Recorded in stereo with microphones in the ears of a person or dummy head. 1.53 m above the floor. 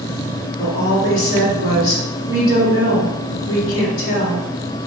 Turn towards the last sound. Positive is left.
turn(degrees=35)  # may be behind; listen again after turning